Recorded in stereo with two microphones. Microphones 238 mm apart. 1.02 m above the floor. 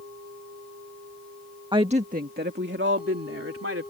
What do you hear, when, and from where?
1.7 s a woman speaking: 20° right (ahead or behind); by 3.9 s 65° right (ahead or behind)